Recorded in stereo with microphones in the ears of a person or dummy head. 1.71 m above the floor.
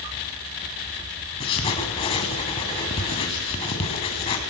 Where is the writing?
30° left (ahead or behind), 2.5 m.